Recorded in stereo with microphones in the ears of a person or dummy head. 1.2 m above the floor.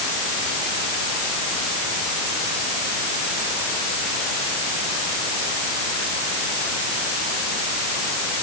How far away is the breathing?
I don't hear breathing.